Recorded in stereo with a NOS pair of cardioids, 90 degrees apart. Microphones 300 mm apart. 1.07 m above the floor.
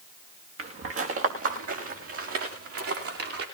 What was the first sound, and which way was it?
Footsteps, 45° right.